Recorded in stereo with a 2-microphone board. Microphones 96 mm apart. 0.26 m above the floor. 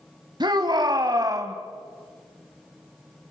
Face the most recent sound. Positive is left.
turn(degrees=-35)  # may be behind; listen again after turning